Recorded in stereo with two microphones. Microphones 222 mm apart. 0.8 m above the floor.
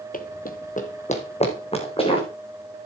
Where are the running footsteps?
40° left (ahead or behind), 0.9 m; by 2.3 s 25° left (ahead or behind), 3.5 m.